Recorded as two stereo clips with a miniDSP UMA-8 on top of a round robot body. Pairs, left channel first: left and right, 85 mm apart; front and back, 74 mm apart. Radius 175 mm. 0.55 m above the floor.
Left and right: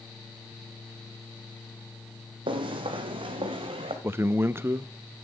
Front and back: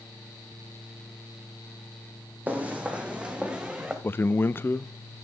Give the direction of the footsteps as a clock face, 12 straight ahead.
4 o'clock.